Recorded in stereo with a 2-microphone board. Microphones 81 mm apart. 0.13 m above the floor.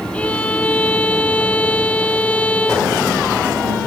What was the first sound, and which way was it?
A violin, 15° left (ahead or behind).